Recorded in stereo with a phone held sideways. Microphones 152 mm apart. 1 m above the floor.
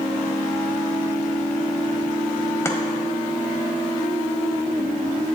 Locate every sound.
2.6 s chopping: 20° left (ahead or behind), 1.4 m